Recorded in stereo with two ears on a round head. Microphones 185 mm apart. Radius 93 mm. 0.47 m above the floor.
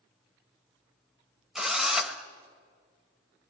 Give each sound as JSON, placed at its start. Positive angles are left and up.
{"t": 1.6, "sound": "a drill", "side_deg": 0, "distance_m": 1.6}